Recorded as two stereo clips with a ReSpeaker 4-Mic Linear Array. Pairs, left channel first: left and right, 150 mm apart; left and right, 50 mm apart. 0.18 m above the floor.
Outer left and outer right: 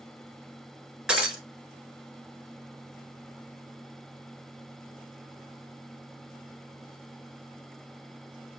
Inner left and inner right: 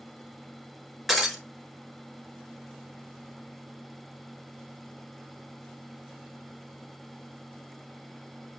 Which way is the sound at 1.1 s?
5° right (ahead or behind).